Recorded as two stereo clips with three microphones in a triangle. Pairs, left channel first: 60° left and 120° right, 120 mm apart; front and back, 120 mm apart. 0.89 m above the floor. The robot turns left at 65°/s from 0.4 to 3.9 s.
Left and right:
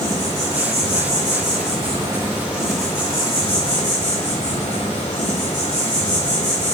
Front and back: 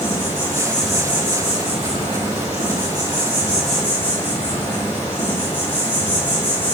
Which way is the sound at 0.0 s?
60° right.